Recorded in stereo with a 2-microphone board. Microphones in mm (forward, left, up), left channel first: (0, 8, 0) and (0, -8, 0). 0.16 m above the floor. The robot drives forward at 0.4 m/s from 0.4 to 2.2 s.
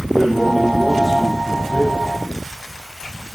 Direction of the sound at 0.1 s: 45° left (ahead or behind).